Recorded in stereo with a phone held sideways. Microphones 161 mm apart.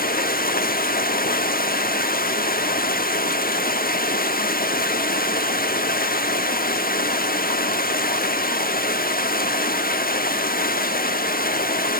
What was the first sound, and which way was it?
Running water, 65° left (ahead or behind).